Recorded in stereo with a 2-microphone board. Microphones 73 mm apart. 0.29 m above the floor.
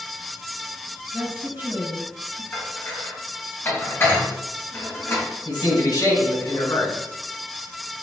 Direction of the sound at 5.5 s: 65° left (ahead or behind).